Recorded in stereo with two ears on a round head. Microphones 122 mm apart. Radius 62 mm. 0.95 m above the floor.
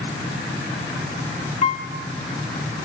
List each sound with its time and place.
1.6 s a piano: 45° left (ahead or behind), 2 m